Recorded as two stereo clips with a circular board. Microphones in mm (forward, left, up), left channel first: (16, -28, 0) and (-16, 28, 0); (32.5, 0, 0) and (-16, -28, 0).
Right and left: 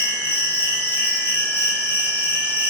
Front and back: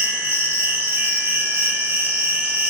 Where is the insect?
115° right, 1.9 m.